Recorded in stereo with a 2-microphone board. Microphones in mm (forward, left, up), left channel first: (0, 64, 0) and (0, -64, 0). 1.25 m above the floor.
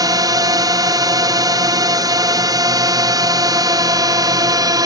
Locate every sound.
0.0 s a drone: 30° right (ahead or behind)